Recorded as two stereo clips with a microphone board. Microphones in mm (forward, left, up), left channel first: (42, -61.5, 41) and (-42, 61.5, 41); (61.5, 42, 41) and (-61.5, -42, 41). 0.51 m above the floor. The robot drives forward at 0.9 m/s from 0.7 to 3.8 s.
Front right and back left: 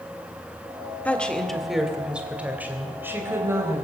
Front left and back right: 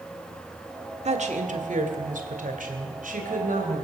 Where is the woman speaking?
135° right, 1.7 m; by 3.8 s 165° right, 3.5 m.